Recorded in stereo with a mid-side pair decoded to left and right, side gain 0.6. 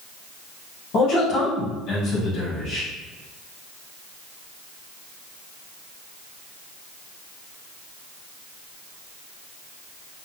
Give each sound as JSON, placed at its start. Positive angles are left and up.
{"t": 0.9, "sound": "a man speaking", "azimuth_deg": 60, "distance_m": 1.8}